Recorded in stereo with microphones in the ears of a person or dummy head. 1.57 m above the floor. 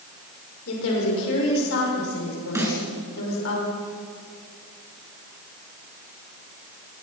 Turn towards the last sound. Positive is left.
turn(degrees=-15)  # may be behind; listen again after turning